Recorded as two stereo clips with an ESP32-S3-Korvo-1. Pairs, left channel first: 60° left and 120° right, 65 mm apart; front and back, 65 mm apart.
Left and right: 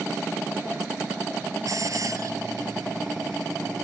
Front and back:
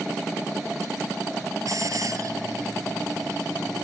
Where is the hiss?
150° right.